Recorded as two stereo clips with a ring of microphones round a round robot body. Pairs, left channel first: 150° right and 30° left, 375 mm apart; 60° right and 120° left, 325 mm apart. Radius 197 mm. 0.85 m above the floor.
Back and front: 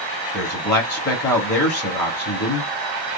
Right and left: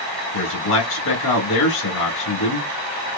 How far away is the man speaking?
About 2 m.